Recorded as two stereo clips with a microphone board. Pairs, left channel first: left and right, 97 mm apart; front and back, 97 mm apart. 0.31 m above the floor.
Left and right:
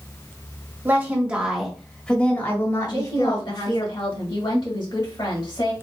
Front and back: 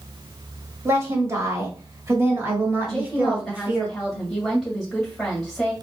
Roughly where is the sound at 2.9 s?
Left.